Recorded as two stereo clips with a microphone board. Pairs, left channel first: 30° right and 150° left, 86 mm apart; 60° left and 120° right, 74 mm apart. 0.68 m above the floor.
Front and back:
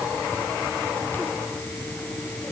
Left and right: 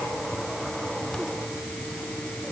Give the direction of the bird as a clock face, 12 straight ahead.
I don't hear a bird.